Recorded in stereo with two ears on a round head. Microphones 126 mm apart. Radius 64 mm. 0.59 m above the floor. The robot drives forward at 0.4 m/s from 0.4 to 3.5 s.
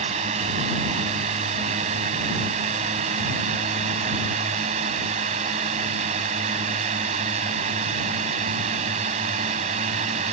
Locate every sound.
0.0 s a drone: 45° right (ahead or behind)